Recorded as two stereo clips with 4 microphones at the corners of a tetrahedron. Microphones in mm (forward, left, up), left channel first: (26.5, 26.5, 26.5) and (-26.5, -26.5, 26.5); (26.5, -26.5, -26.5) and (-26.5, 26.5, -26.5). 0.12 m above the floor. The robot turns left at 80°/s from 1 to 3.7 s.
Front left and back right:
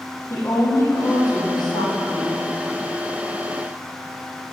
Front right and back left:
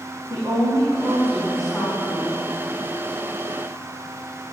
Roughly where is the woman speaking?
Left.